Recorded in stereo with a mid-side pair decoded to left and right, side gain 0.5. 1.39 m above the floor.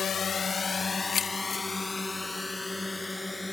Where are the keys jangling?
50° left.